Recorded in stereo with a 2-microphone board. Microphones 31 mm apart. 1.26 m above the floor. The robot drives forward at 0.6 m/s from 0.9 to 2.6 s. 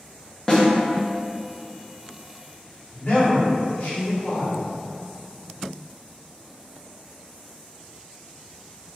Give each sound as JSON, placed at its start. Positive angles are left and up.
{"t": 0.5, "sound": "a snare drum", "side_deg": 20, "distance_m": 0.7}
{"t": 2.9, "sound": "a man speaking", "side_deg": 75, "distance_m": 1.4}